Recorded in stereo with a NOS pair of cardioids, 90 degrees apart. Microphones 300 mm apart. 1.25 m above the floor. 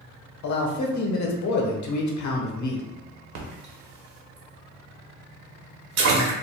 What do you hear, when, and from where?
0.4 s a man speaking: 65° left, 0.9 m
3.4 s a splash: 65° right, 1.0 m